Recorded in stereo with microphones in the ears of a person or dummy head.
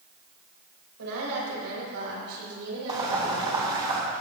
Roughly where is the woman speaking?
Right.